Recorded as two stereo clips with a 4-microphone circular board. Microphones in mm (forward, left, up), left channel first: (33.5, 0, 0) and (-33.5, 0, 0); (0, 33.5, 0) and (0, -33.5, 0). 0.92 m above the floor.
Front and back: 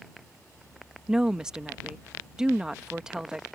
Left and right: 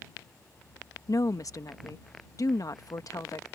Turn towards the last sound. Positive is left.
turn(degrees=100)